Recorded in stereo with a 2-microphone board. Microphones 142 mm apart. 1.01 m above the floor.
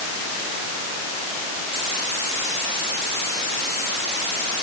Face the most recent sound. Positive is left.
No sound to turn to.